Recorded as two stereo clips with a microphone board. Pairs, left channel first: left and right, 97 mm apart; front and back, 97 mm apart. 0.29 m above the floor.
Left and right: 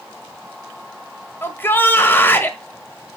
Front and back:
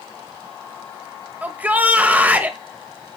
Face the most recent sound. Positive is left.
turn(degrees=130)